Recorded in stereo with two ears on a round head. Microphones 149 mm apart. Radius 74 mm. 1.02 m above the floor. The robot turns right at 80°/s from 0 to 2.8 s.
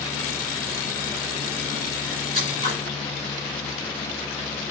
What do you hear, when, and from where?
2.3 s scissors: 145° right, 2 m; by 2.8 s 110° right, 2 m